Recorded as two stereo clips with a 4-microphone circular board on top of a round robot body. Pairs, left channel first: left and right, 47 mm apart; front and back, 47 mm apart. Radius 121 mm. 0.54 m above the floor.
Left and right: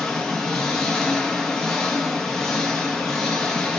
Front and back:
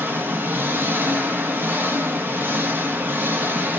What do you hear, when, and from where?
0.0 s an engine running: 170° left, 0.8 m